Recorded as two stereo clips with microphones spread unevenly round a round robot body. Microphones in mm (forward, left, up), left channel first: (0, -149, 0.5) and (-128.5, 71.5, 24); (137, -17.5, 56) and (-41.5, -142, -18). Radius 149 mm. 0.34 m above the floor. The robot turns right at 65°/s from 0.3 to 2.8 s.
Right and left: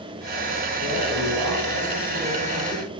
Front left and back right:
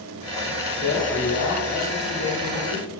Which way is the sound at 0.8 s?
55° left.